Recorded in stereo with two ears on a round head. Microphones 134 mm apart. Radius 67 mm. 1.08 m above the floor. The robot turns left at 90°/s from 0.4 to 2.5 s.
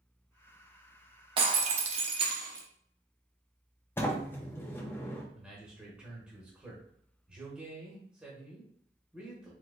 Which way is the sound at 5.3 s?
10° right (ahead or behind).